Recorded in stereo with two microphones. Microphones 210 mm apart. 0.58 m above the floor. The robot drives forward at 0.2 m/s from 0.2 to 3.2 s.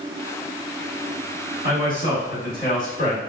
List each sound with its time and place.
1.6 s a man speaking: 40° left (ahead or behind), 1.7 m; by 3.2 s 35° left (ahead or behind), 1.9 m